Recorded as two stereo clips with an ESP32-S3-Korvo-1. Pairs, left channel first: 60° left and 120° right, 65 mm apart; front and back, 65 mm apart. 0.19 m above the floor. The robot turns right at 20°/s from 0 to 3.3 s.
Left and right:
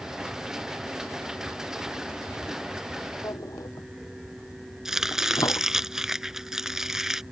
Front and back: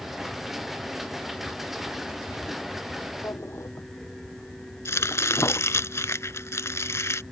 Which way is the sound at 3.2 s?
40° left.